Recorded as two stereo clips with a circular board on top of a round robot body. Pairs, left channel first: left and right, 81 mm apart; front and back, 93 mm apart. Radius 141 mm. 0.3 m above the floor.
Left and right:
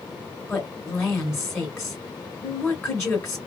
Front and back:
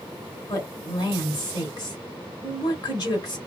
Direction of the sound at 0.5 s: 35° left.